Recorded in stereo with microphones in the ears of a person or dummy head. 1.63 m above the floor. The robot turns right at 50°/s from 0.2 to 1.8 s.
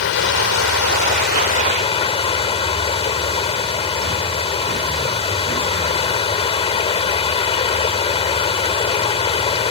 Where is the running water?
70° left; by 9.7 s 150° left.